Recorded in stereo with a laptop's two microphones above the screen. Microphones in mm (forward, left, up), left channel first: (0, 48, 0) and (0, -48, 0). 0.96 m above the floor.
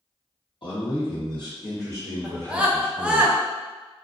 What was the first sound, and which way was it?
A man speaking, 55° left (ahead or behind).